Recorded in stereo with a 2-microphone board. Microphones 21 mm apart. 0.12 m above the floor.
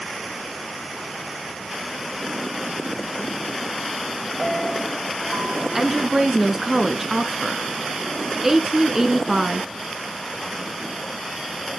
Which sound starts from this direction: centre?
A woman speaking, at 5.8 s.